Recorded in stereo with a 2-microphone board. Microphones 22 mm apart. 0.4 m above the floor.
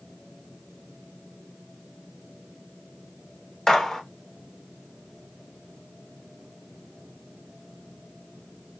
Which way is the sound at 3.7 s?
25° left (ahead or behind).